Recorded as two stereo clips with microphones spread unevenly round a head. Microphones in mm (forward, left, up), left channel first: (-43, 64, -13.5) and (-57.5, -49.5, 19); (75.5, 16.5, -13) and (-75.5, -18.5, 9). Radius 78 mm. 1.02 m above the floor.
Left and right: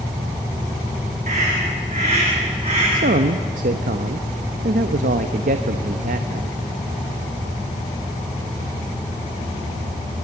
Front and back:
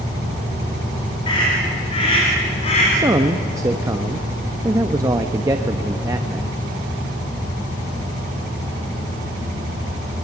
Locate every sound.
1.3 s a scream: 45° right, 4.5 m; by 2.8 s 35° right, 3.5 m
2.9 s a man speaking: 95° right, 0.9 m